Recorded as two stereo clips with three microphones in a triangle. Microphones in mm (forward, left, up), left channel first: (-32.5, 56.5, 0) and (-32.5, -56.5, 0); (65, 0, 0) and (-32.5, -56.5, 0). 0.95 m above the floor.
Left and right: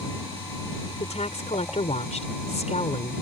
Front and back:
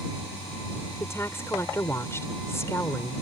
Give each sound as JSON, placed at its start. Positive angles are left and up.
{"t": 1.0, "sound": "a woman speaking", "azimuth_deg": 95}